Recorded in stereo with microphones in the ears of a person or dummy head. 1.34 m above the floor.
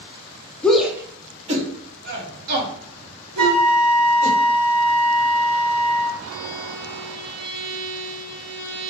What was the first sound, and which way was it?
A shout, 10° left (ahead or behind).